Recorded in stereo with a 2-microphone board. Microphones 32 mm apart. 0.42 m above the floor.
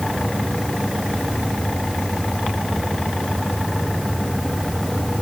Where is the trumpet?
I don't hear a trumpet.